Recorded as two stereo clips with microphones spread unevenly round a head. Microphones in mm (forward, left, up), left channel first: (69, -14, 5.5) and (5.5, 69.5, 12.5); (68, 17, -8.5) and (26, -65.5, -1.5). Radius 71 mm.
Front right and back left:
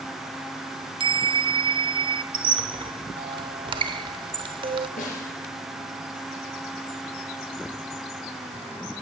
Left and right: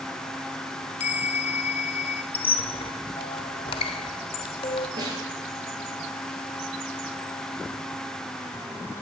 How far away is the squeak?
About 1.0 m.